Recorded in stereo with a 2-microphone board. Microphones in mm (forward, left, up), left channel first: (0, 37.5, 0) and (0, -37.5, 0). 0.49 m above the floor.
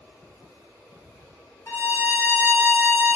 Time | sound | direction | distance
1.7 | a violin | 35° left (ahead or behind) | 0.7 m